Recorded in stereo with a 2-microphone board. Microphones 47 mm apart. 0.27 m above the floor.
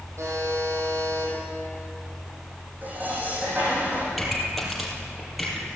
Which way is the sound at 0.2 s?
85° right.